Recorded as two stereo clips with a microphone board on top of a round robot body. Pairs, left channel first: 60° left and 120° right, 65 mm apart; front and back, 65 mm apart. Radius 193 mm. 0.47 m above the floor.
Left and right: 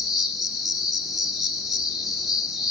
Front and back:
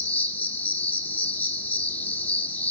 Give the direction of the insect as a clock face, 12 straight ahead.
1 o'clock.